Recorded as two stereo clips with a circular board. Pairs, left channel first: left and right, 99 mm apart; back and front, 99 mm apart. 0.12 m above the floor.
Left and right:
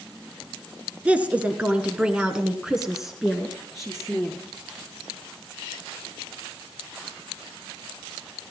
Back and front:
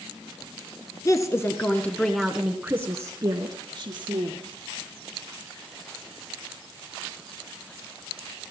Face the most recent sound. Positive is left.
turn(degrees=5)